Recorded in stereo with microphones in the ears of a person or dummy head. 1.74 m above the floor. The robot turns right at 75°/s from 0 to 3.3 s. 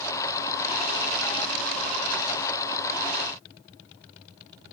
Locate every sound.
Only background noise.